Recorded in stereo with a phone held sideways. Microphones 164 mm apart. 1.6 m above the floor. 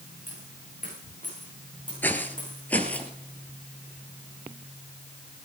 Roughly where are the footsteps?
Centre.